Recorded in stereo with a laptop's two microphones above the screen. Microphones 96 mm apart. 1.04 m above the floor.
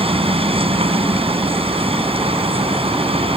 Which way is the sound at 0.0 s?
85° right.